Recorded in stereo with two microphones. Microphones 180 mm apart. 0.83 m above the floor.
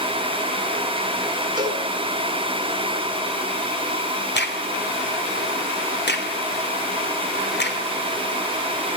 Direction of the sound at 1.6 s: 25° right (ahead or behind).